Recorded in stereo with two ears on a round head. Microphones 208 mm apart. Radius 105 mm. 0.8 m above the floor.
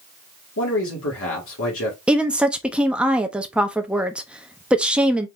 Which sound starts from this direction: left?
A man speaking, at 0.6 s.